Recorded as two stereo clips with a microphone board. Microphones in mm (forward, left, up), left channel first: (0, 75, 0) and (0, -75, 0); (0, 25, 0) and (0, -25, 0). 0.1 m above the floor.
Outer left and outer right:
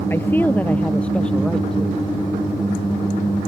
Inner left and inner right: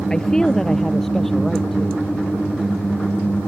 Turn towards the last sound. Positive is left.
turn(degrees=5)  # may be behind; listen again after turning